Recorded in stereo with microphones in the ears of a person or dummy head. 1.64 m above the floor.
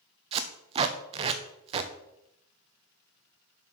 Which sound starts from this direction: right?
Tape being pulled, at 0.3 s.